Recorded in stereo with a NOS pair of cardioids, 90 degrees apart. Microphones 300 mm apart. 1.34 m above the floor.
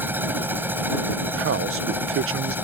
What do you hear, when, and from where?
0.0 s a machine running: 5° right
1.4 s a man speaking: 50° right